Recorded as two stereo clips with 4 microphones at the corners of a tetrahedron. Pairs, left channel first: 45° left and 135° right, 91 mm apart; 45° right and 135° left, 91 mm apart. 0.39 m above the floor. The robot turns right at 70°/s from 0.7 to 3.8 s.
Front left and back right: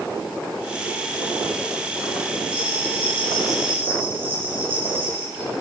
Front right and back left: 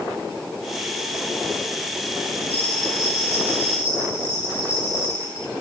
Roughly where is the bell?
Ahead left.